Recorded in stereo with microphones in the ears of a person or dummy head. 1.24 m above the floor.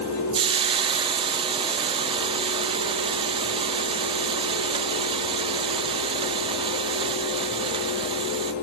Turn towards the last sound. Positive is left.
turn(degrees=-30)  # may be behind; listen again after turning